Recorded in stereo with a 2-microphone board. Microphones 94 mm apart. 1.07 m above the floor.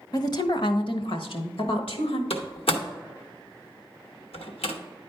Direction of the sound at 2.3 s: 85° left.